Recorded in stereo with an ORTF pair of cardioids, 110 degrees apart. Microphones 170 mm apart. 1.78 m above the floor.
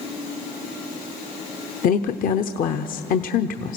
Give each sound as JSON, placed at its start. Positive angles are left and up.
{"t": 1.8, "sound": "a woman speaking", "azimuth_deg": 55, "distance_m": 0.9}